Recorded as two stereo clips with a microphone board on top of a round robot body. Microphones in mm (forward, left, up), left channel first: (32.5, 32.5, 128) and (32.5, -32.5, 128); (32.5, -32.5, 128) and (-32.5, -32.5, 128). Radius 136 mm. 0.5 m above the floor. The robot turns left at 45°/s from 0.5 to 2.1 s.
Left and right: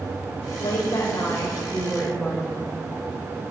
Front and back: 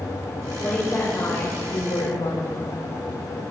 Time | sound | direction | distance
0.6 | a woman speaking | 70° left | 2.5 m